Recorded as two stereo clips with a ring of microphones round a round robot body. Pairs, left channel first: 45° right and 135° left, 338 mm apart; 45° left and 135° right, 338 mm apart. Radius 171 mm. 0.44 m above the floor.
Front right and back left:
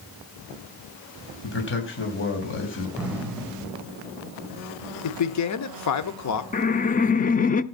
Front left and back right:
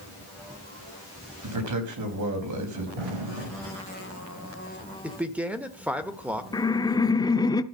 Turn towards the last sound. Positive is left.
turn(degrees=-20)